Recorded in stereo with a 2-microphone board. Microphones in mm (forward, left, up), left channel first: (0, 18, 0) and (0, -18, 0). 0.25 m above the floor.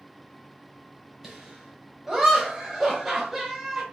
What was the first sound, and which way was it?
Laughter, 15° right (ahead or behind).